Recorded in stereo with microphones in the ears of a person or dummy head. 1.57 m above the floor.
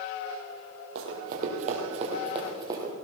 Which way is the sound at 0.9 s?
55° right (ahead or behind).